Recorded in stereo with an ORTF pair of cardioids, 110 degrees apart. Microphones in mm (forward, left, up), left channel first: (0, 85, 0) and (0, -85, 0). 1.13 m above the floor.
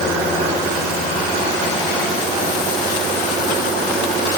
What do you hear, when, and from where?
Only background noise.